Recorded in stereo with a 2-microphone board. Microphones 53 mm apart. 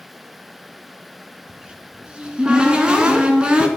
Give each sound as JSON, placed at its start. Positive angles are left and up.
{"t": 1.5, "sound": "a cupboard door", "side_deg": -15, "distance_m": 1.9}